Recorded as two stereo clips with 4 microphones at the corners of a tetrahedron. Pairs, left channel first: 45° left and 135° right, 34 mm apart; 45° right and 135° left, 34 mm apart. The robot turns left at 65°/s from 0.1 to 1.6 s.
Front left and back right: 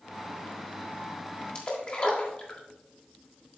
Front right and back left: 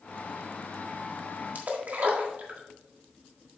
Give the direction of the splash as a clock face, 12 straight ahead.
9 o'clock.